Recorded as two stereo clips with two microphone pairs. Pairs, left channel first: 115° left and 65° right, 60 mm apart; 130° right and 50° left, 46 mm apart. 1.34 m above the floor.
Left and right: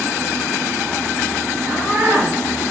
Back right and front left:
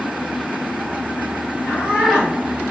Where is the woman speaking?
10° right, 1.0 m.